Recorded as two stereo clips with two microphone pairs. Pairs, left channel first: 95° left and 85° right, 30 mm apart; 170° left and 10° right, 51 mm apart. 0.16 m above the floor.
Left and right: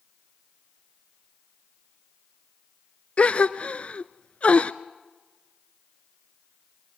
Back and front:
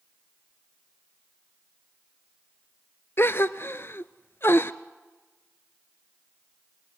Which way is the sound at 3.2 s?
135° left.